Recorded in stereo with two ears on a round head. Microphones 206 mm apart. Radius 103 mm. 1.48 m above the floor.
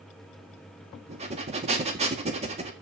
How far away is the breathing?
About 1.8 m.